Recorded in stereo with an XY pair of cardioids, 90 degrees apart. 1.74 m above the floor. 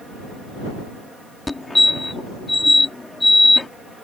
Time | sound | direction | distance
1.5 | a fire alarm | 20° left | ?